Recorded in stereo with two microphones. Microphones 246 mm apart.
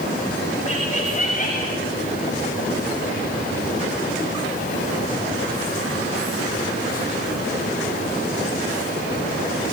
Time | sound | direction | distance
0.7 | laughter | 25° left (ahead or behind) | 6.5 m